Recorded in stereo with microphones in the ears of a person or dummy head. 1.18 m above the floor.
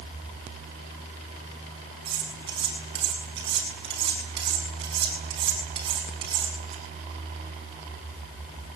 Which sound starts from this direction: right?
Cutlery clinking, at 2.0 s.